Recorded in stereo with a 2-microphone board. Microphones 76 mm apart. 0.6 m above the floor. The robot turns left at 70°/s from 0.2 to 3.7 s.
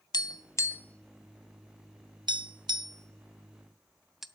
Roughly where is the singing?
I don't hear singing.